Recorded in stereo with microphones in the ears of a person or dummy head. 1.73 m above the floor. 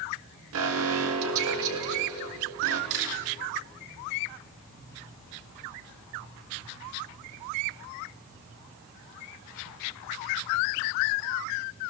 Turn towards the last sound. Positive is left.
turn(degrees=-75)  # may be behind; listen again after turning